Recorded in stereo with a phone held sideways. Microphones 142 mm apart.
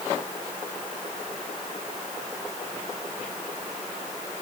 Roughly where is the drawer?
I don't hear a drawer.